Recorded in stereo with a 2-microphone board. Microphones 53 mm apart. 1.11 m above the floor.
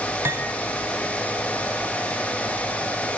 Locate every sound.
0.2 s cutlery clinking: 55° right (ahead or behind), 5 m